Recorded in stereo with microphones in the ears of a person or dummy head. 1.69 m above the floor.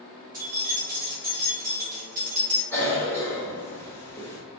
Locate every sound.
0.3 s keys jangling: 15° right (ahead or behind), 0.5 m
2.7 s a cough: 15° left (ahead or behind), 1.0 m